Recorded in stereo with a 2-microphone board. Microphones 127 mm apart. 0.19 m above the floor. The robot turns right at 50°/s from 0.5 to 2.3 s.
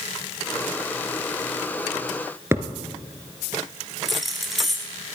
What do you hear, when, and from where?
2.5 s a thud: 20° right (ahead or behind), 1.3 m
4.0 s keys jangling: centre (ahead or behind), 1.9 m